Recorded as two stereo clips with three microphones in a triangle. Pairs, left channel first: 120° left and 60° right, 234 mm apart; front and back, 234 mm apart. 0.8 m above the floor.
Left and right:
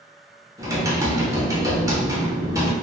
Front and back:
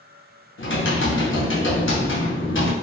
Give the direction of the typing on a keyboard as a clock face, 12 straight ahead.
12 o'clock.